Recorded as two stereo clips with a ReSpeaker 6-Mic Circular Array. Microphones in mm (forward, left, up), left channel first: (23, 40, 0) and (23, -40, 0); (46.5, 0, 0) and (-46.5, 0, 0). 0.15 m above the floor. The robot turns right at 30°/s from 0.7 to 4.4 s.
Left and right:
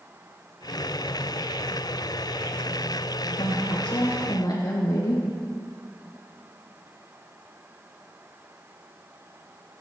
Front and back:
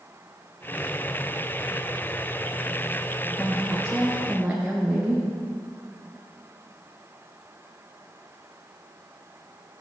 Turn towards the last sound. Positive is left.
turn(degrees=105)